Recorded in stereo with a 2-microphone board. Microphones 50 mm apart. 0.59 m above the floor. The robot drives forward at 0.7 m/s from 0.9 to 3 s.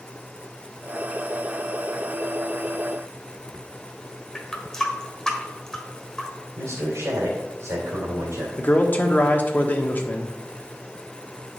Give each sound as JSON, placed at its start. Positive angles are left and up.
{"t": 4.3, "sound": "a running tap", "side_deg": 15, "distance_m": 1.5}
{"t": 6.6, "sound": "a man speaking", "side_deg": -70, "distance_m": 2.5}
{"t": 8.6, "sound": "a man speaking", "side_deg": 35, "distance_m": 1.3}